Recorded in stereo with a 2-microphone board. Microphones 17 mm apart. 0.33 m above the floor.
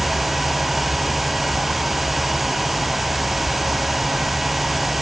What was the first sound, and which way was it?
Only background noise.